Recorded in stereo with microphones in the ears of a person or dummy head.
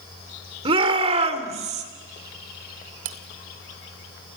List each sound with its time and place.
0.7 s a shout: 30° right (ahead or behind), 3.5 m; by 1.9 s 40° right (ahead or behind), 3 m
3.0 s cutlery clinking: 30° right (ahead or behind), 0.7 m